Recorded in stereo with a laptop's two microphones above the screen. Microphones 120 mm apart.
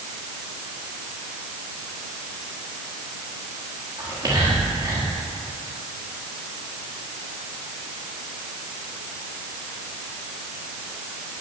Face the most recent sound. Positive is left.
turn(degrees=-30)  # may be behind; listen again after turning